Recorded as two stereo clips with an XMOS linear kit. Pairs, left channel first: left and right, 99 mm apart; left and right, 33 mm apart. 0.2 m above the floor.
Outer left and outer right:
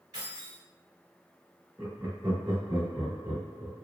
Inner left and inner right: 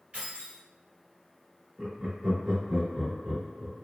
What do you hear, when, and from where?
0.1 s keys jangling: 40° right (ahead or behind), 1.9 m
1.8 s laughter: 20° right (ahead or behind), 1.1 m